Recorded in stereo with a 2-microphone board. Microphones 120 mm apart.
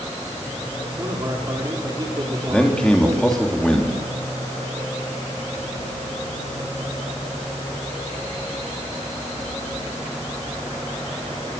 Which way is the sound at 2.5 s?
5° left (ahead or behind).